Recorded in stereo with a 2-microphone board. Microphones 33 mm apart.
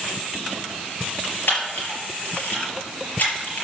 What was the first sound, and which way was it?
A camera shutter, 80° left.